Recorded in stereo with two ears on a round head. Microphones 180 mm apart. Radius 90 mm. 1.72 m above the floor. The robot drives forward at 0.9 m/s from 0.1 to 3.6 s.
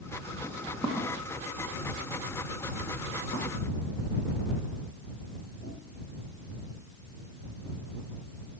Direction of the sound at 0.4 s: 5° left (ahead or behind).